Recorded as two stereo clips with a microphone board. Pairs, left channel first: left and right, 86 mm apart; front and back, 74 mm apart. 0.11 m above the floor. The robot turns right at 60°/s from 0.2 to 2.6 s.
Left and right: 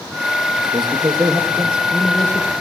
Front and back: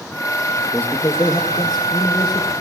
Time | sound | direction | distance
0.6 | a man speaking | 80° right | 3.5 m